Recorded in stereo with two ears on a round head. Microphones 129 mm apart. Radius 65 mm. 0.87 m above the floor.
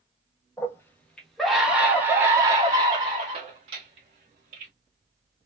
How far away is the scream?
About 1.3 m.